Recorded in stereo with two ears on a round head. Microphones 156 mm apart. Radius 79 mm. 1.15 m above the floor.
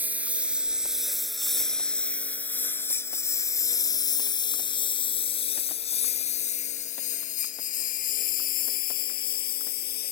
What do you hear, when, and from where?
0.0 s a lawn mower: 10° right (ahead or behind); by 10.1 s 60° left (ahead or behind)